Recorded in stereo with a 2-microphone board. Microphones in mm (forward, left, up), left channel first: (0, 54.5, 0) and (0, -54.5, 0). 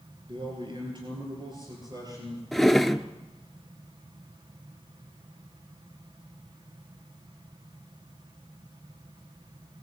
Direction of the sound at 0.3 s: 50° right (ahead or behind).